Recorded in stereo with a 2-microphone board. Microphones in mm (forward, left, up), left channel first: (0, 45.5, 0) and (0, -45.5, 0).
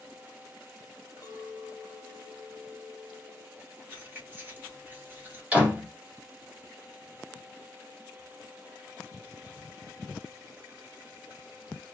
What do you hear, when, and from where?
1.2 s a clink: 45° left (ahead or behind), 0.9 m
3.9 s keys jangling: 25° right (ahead or behind), 1.2 m
5.5 s a door slam: 15° right (ahead or behind), 1.9 m